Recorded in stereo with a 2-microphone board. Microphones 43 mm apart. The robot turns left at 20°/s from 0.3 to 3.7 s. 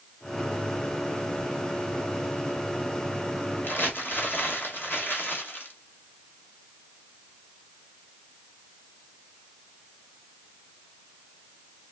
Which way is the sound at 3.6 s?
55° left (ahead or behind).